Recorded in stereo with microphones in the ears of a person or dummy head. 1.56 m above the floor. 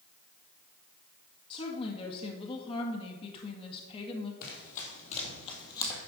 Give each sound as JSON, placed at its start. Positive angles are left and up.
{"t": 1.5, "sound": "a woman speaking", "side_deg": 25, "distance_m": 1.9}
{"t": 4.4, "sound": "running footsteps", "side_deg": 50, "distance_m": 3.5}